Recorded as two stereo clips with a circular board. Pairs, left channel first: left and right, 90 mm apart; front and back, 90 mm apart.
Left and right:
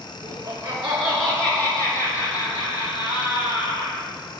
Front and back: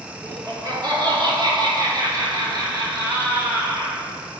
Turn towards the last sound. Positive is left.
turn(degrees=120)